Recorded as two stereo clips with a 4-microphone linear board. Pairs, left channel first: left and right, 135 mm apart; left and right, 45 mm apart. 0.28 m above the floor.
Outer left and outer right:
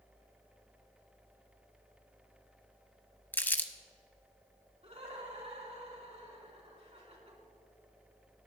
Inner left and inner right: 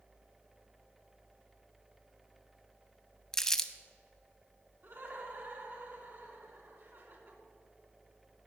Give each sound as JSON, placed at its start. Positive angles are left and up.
{"t": 3.3, "sound": "crumpling", "side_deg": 15, "distance_m": 0.6}
{"t": 4.8, "sound": "laughter", "side_deg": -50, "distance_m": 3.0}